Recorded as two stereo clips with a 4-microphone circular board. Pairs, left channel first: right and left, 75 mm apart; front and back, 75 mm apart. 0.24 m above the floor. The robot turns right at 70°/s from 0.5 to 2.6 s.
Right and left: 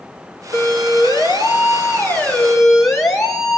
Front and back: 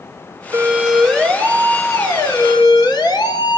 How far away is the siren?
About 4.5 m.